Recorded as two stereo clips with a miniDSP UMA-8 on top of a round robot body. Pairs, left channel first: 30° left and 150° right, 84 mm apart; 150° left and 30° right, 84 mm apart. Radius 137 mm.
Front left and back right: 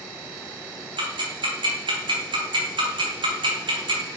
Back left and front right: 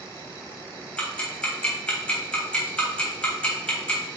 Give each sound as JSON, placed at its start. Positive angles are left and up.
{"t": 1.0, "sound": "ticking", "azimuth_deg": -135, "distance_m": 3.0}